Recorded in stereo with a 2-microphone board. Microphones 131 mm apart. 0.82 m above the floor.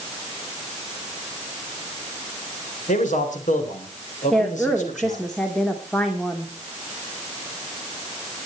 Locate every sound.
2.9 s a man speaking: 75° left (ahead or behind), 3.5 m; by 5.3 s 70° left (ahead or behind), 3.5 m
4.3 s a woman speaking: 5° left (ahead or behind), 1.7 m